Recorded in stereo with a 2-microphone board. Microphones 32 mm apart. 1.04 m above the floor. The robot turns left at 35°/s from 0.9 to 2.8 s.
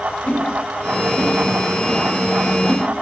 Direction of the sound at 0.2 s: 70° left (ahead or behind).